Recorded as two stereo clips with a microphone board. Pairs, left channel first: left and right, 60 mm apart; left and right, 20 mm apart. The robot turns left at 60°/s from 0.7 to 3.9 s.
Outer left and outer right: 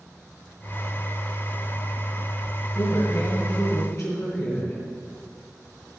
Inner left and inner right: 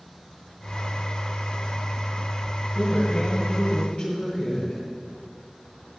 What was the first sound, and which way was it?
A woman speaking, 120° left.